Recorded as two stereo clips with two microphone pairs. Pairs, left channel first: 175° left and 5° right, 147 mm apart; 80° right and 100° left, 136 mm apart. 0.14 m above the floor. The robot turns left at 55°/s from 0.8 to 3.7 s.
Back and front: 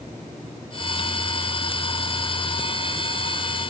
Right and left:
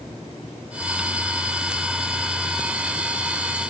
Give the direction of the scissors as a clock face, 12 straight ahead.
I don't hear scissors.